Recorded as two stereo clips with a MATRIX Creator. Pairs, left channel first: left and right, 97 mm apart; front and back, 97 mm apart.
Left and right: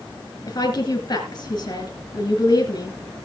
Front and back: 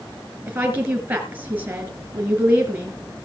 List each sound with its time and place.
0.5 s a woman speaking: 130° left, 2 m